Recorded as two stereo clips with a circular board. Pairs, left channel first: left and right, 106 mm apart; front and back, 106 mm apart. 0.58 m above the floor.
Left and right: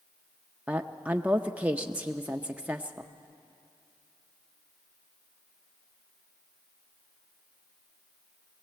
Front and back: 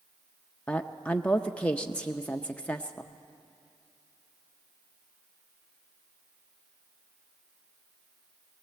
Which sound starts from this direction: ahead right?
A woman speaking, at 0.7 s.